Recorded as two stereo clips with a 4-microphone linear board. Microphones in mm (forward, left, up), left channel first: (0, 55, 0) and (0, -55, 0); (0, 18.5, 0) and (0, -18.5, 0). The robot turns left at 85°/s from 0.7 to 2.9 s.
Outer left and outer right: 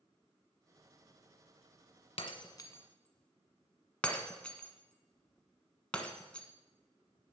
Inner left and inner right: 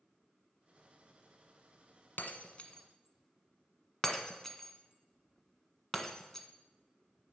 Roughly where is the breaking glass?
Left.